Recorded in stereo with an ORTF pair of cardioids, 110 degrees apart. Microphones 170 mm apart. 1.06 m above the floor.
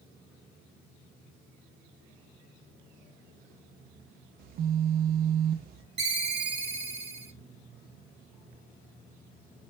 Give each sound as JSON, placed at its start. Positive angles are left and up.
{"t": 4.4, "sound": "a phone buzzing", "azimuth_deg": -65, "distance_m": 0.5}
{"t": 6.0, "sound": "a ringtone", "azimuth_deg": -40, "distance_m": 0.8}